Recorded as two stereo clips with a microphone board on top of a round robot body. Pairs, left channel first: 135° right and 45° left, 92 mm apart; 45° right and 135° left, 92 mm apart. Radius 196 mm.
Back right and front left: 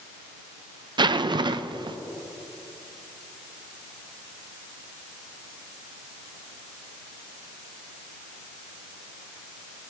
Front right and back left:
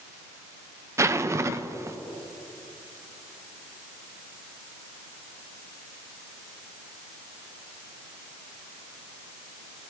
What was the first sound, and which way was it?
A zipper, 80° left.